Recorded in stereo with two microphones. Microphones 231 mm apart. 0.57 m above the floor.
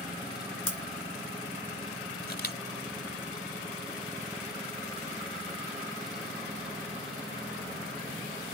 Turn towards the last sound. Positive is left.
turn(degrees=45)  # may be behind; listen again after turning